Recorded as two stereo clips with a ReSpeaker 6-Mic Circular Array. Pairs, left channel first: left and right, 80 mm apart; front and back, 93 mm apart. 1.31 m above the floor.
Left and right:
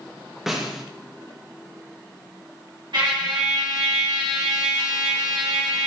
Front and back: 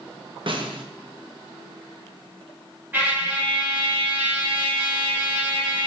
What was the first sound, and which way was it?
A snare drum, 175° right.